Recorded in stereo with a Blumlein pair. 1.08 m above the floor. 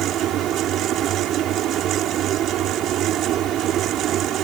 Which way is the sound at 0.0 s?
30° right.